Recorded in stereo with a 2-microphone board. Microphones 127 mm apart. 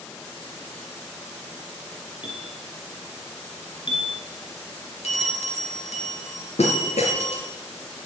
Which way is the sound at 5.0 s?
60° left (ahead or behind).